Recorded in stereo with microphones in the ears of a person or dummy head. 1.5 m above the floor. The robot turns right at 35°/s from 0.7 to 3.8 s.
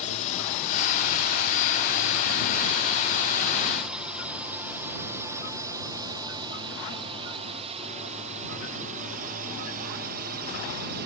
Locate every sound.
0.0 s a drone: 35° left (ahead or behind); by 11.1 s 50° right (ahead or behind)